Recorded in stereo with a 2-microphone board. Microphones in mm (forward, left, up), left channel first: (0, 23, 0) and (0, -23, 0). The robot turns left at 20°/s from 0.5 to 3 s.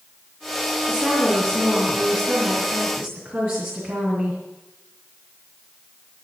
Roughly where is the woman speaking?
Ahead.